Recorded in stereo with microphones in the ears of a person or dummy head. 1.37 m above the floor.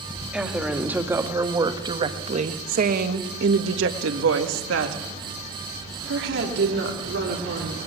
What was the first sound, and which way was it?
A woman speaking, centre (ahead or behind).